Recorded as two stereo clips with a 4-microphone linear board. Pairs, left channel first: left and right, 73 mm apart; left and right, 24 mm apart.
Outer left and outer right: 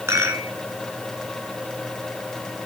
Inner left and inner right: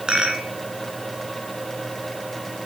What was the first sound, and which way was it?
A rattle, 40° right (ahead or behind).